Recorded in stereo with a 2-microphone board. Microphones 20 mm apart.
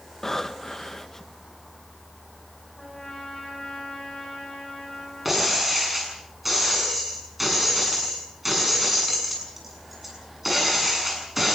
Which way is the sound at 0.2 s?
25° left (ahead or behind).